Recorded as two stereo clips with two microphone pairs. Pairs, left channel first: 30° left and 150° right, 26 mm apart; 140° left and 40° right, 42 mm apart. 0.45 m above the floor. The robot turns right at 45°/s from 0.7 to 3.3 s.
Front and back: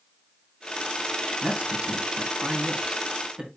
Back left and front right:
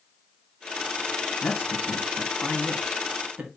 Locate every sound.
1.4 s a man speaking: 165° left, 4 m; by 3.5 s 110° right, 4 m